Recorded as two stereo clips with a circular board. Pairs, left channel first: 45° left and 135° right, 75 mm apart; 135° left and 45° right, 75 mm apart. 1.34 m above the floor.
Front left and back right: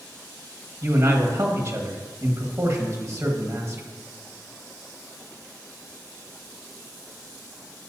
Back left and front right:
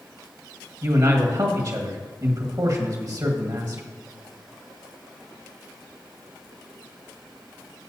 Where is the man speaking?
80° right, 1.6 m.